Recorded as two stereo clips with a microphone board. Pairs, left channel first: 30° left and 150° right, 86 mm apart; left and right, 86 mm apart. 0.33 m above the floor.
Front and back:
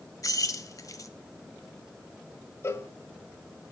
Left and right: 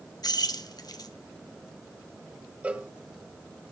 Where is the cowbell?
20° right, 1.1 m.